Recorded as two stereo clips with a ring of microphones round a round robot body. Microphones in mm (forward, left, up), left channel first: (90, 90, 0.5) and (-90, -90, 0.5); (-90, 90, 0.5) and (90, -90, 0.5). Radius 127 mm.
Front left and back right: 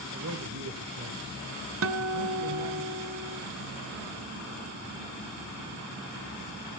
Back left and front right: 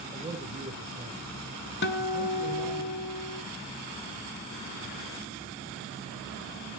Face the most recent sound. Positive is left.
turn(degrees=-175)